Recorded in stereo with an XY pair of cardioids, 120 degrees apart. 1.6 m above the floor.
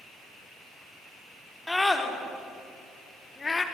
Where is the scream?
10° left, 4.5 m; by 3.6 s 25° left, 3.5 m.